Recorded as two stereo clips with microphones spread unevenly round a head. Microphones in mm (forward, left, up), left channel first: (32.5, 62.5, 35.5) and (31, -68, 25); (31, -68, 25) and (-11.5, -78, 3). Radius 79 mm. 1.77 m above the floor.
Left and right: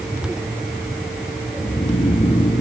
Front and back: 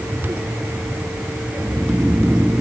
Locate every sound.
1.6 s snoring: 95° left, 0.9 m